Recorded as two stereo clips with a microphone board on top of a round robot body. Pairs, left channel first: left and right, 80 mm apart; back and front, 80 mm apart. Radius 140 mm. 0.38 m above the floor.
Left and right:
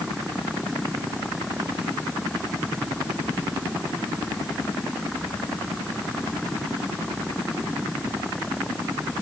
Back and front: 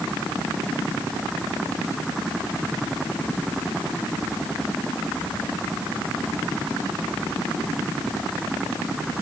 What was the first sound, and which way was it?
Only background noise.